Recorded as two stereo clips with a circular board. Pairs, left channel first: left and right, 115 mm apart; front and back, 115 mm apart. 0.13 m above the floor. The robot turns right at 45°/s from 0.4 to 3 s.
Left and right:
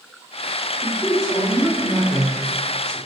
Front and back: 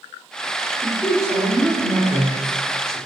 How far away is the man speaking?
About 1.4 m.